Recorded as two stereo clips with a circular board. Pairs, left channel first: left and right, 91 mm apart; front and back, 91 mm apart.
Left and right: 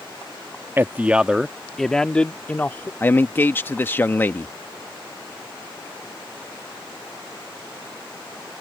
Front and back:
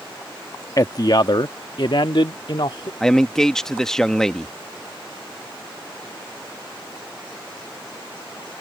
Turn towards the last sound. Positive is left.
turn(degrees=75)